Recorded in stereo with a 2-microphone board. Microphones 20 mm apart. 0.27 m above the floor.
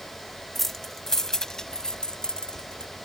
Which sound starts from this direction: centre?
Keys jangling, at 0.6 s.